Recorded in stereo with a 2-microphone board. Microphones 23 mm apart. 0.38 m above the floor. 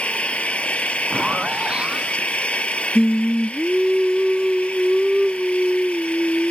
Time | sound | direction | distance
0.0 | an engine running | 65° left (ahead or behind) | ?
1.1 | a zipper | 50° right (ahead or behind) | ?
3.0 | singing | 30° right (ahead or behind) | ?